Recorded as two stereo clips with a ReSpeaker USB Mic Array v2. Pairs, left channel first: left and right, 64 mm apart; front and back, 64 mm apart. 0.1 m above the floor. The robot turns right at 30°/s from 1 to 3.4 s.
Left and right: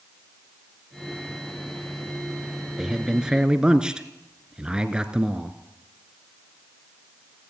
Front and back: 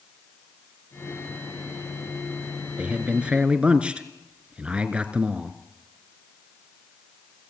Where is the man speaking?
160° right, 1.4 m; by 5.6 s 145° right, 1.4 m.